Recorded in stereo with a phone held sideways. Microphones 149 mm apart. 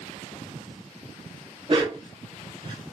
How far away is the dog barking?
About 1.0 m.